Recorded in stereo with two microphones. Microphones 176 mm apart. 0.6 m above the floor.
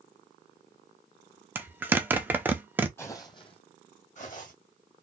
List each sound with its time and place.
1.6 s a zipper: 10° right (ahead or behind), 0.6 m
3.0 s footsteps: 15° left (ahead or behind), 1.0 m; by 4.5 s 50° left (ahead or behind), 1.8 m